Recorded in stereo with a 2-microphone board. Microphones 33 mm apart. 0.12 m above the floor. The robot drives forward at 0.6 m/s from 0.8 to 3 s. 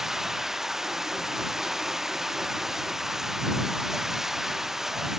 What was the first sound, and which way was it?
Running water, 15° right (ahead or behind).